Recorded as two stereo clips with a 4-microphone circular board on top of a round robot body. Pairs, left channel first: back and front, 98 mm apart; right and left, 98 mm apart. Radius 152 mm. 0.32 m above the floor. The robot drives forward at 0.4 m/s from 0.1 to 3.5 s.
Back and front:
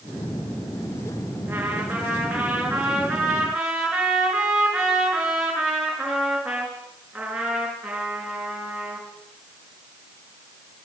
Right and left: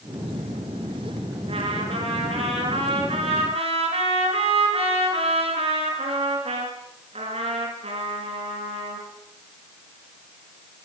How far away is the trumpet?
About 6.5 m.